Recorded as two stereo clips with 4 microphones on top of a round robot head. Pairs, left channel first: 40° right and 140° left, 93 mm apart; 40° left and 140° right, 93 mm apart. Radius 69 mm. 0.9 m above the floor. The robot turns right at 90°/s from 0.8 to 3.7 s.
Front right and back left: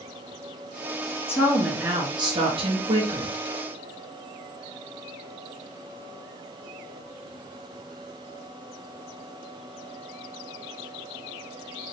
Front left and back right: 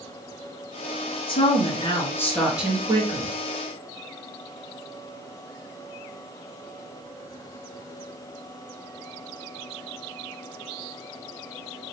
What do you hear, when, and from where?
1.3 s a woman speaking: 25° left, 2 m; by 3.4 s 150° right, 2 m